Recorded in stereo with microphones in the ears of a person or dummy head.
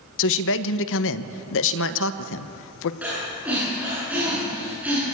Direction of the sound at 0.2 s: 70° left (ahead or behind).